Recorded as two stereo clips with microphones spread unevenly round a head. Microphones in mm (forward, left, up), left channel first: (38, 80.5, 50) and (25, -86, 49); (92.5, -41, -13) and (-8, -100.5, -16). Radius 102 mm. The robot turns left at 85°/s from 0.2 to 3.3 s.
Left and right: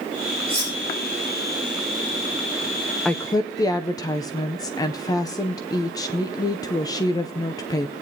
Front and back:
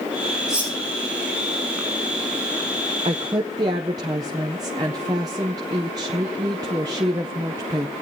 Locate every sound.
0.5 s cutlery clinking: 60° right, 9 m; by 0.7 s 85° right, 9 m
3.0 s a woman speaking: 170° left, 0.5 m; by 7.9 s 150° left, 0.5 m